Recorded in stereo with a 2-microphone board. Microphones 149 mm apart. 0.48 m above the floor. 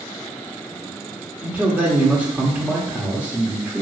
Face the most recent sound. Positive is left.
turn(degrees=-10)  # may be behind; listen again after turning